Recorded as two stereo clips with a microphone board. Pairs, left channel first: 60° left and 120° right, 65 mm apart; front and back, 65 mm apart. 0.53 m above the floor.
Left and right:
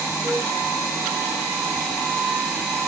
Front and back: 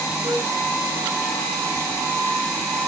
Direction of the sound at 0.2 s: 170° left.